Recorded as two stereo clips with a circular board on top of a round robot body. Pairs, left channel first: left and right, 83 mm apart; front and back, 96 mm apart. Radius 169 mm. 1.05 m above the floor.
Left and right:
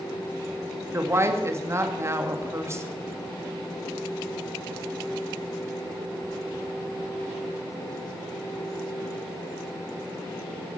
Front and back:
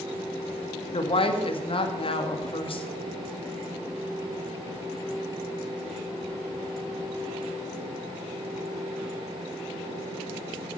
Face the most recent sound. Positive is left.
turn(degrees=-30)